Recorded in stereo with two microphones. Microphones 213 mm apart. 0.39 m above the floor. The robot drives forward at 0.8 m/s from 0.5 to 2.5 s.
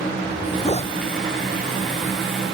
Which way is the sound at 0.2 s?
30° left (ahead or behind).